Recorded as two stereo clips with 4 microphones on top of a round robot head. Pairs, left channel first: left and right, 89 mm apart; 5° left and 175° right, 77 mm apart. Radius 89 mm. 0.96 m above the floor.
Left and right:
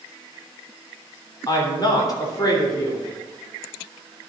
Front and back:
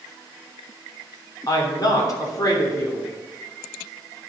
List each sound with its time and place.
1.5 s a woman speaking: 45° left, 3 m